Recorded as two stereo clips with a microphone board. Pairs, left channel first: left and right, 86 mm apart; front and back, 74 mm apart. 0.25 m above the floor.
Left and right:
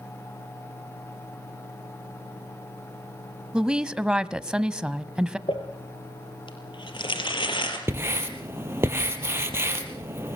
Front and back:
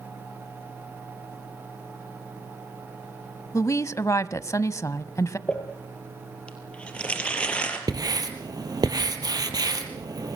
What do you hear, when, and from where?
3.5 s a woman speaking: 15° right, 1.2 m
5.5 s crumpling: 75° left, 5 m
7.9 s writing: 150° right, 3.5 m